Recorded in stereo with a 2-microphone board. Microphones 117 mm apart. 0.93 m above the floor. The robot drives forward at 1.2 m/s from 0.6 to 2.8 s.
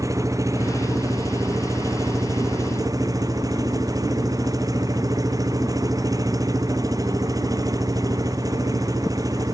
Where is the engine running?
30° right (ahead or behind).